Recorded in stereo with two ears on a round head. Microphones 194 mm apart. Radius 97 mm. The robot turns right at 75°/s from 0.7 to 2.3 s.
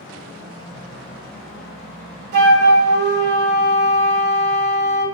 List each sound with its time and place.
2.3 s a flute: 55° right (ahead or behind), 0.8 m